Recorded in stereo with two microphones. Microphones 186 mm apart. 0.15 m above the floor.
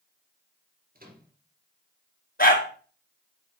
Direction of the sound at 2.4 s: 50° left (ahead or behind).